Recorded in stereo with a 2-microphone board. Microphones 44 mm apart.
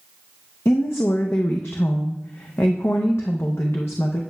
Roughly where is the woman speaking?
Left.